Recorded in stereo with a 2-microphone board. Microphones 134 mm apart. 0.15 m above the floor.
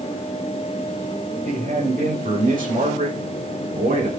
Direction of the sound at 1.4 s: 80° right.